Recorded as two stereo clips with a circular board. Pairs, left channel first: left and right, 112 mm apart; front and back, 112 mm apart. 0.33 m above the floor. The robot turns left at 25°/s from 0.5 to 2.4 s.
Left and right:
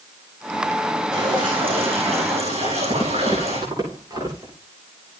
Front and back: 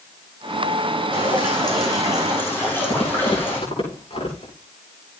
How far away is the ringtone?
No ringtone in this recording.